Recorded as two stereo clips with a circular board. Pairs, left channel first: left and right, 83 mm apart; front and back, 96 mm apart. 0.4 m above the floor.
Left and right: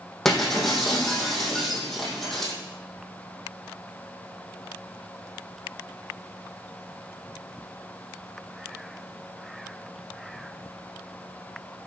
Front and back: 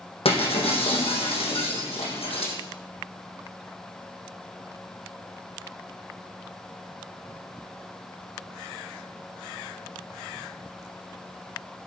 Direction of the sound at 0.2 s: 5° left.